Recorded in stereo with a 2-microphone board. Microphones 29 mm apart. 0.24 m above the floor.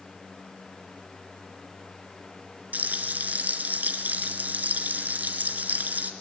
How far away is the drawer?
I don't hear a drawer.